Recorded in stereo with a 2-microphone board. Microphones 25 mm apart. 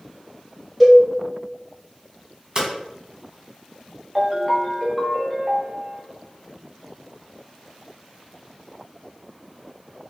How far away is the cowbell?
About 1.4 m.